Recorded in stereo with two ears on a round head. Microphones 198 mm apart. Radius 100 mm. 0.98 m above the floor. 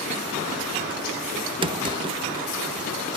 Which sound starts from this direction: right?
A drawer, at 1.6 s.